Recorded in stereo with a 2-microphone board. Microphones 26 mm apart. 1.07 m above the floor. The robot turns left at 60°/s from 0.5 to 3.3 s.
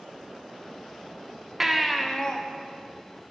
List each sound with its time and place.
1.6 s a baby crying: 165° right, 0.5 m; by 2.4 s 150° left, 0.5 m